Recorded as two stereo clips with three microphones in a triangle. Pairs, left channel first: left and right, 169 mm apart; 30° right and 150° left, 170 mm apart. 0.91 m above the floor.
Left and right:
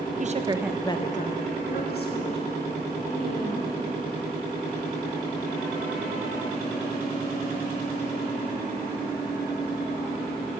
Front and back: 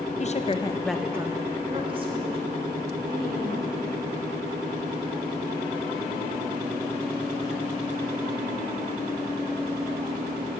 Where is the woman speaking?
65° right, 0.7 m; by 3.8 s 100° left, 3 m.